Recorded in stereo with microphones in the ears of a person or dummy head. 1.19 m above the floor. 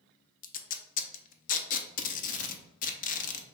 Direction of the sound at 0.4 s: 35° left (ahead or behind).